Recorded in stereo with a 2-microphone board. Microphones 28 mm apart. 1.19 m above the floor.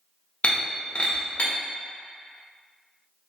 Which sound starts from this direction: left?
Breaking glass, at 0.4 s.